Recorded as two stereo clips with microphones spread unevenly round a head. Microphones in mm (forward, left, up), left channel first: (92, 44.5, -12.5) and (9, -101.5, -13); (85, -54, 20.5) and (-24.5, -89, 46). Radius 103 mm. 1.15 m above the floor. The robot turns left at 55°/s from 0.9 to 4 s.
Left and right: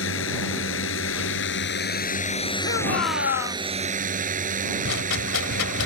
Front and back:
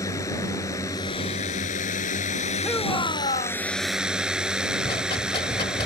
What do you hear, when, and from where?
0.0 s a drone: 90° left; by 5.9 s 80° right
2.6 s a shout: 105° left; by 3.6 s 50° left
4.8 s a rattle: 85° left